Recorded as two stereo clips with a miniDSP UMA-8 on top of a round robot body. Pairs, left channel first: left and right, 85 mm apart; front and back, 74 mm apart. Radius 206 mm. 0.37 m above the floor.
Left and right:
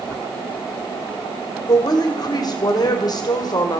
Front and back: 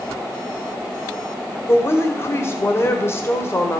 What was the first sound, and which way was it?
A woman speaking, 55° left.